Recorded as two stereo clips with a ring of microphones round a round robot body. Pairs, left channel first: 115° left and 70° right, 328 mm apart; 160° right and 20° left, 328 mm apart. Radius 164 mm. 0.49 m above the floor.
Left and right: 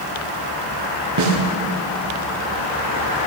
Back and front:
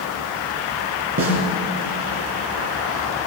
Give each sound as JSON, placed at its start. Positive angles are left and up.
{"t": 1.2, "sound": "a snare drum", "azimuth_deg": -30, "distance_m": 3.0}